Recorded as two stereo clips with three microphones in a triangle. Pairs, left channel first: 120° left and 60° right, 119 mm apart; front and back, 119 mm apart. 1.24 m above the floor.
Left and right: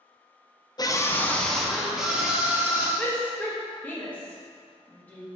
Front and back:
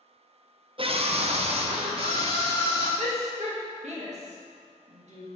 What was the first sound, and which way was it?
A scream, 165° left.